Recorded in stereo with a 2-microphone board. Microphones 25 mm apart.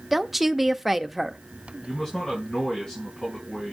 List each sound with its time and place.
0.1 s a woman speaking: 10° right (ahead or behind), 0.7 m
1.8 s a man speaking: 35° left (ahead or behind), 5 m